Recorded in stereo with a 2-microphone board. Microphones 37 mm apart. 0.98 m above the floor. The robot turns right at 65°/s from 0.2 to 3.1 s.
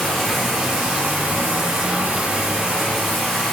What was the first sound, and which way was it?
Running water, 175° left.